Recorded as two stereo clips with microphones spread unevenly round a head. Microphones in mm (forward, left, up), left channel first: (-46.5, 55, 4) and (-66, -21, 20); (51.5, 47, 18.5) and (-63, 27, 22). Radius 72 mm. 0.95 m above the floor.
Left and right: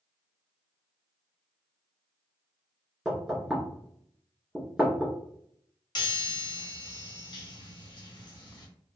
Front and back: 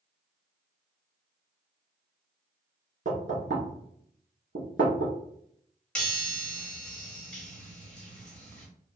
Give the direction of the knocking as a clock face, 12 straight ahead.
6 o'clock.